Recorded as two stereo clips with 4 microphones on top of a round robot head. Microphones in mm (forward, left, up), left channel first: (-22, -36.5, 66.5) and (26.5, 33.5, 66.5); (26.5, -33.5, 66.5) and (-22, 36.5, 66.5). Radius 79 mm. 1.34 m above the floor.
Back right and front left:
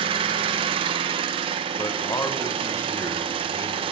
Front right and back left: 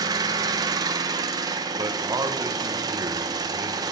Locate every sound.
0.0 s an engine running: 75° left, 0.9 m
1.8 s a man speaking: straight behind, 1.3 m